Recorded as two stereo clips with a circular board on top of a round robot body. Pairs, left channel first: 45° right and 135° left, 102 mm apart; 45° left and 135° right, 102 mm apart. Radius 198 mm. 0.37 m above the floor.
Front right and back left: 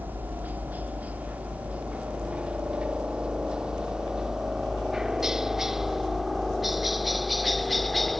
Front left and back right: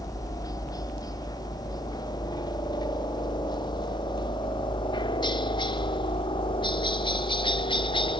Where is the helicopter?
70° left; by 8.2 s 45° left.